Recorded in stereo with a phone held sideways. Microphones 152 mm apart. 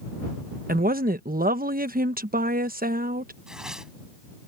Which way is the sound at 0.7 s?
75° right (ahead or behind).